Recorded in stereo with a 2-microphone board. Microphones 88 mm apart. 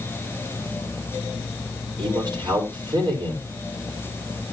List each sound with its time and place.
2.0 s a man speaking: 55° right (ahead or behind), 4 m